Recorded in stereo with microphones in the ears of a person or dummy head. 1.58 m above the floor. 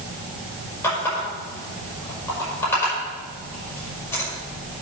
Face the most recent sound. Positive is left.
turn(degrees=15)  # may be behind; listen again after turning